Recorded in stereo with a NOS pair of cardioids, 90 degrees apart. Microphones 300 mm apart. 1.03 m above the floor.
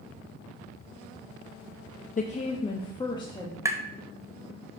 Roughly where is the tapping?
Ahead.